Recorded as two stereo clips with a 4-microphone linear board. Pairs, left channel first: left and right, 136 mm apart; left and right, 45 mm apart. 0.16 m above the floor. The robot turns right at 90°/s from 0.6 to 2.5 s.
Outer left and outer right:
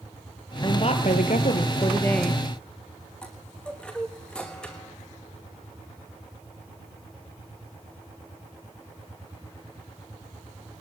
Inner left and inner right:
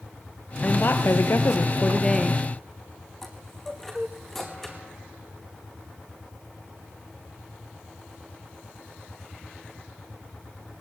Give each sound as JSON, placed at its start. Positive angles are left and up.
{"t": 0.6, "sound": "a woman speaking", "azimuth_deg": 35, "distance_m": 3.5}
{"t": 3.2, "sound": "a chime", "side_deg": 5, "distance_m": 4.0}